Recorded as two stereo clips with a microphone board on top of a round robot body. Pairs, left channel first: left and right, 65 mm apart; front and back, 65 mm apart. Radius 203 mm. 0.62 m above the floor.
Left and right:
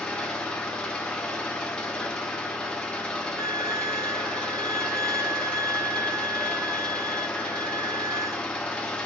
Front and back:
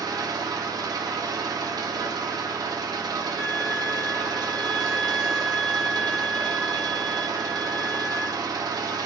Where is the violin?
100° right, 3 m.